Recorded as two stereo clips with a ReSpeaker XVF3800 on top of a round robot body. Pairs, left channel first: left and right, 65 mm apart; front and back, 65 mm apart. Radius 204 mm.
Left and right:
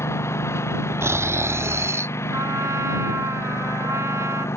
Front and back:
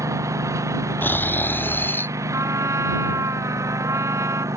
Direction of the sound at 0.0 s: 140° left.